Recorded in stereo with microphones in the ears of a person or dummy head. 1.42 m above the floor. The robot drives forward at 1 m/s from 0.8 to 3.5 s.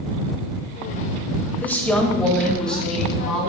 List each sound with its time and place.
1.6 s a woman speaking: 10° left (ahead or behind), 1.0 m; by 3.5 s 5° left (ahead or behind), 3 m